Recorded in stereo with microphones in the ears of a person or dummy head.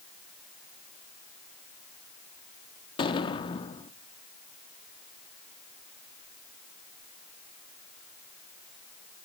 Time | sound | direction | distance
3.0 | an explosion | 30° left (ahead or behind) | 1.1 m